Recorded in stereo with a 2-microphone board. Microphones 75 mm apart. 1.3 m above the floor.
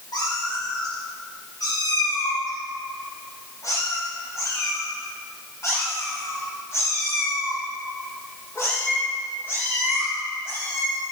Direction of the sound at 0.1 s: 65° left (ahead or behind).